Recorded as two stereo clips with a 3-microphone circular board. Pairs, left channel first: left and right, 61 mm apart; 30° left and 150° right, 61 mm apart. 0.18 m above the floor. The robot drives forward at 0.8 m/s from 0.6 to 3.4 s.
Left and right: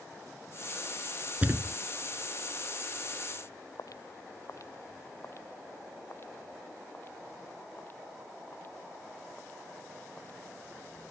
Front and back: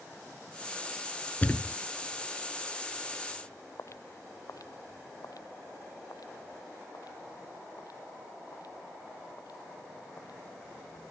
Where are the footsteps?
70° left; by 11.0 s 30° left.